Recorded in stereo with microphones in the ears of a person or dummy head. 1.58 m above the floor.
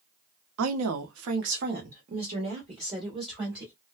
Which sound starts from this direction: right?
A woman speaking, at 0.6 s.